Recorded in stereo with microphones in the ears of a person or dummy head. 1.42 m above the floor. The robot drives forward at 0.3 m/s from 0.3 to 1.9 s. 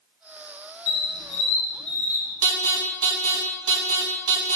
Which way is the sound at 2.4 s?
65° right (ahead or behind).